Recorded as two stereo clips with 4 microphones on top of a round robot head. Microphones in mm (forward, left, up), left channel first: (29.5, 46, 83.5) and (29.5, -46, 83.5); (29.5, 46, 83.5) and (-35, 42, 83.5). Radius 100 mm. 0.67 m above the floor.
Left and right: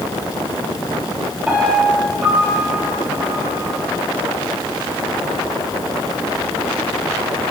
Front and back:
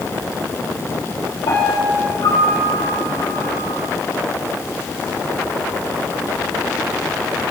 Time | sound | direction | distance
1.5 | a piano | 15° right | 6.5 m